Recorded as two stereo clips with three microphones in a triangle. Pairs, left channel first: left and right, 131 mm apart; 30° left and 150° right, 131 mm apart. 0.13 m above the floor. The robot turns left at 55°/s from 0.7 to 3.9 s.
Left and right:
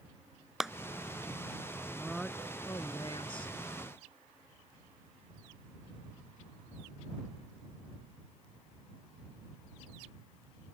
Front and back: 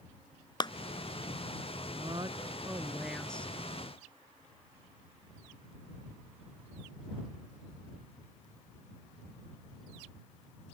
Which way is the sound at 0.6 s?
5° right.